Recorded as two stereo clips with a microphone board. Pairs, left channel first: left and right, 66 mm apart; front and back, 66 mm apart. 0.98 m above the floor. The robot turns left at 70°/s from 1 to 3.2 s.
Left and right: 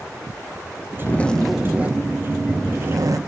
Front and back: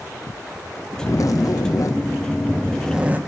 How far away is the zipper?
About 1.9 m.